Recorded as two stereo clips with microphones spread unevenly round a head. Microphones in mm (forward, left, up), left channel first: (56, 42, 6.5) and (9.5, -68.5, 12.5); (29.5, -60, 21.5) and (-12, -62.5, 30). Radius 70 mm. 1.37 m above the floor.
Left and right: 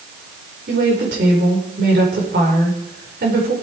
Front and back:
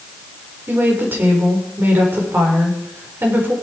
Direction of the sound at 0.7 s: 140° right.